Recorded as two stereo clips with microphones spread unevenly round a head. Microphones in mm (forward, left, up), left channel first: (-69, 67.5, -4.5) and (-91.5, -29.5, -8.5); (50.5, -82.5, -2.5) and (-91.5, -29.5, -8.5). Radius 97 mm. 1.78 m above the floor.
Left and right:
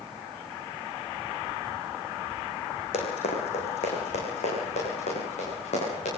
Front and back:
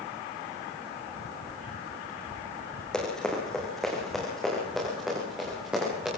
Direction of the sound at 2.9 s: 65° left.